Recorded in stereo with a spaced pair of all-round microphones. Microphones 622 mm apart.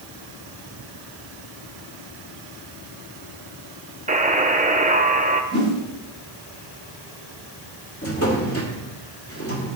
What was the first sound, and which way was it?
A buzzer, 10° right (ahead or behind).